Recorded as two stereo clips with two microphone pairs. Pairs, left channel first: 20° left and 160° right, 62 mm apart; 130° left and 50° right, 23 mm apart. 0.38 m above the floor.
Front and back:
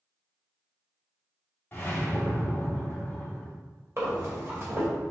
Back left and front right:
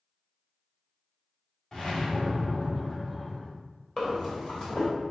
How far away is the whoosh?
About 1.8 m.